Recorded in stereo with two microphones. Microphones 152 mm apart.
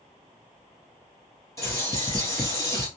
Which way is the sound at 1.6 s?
20° left (ahead or behind).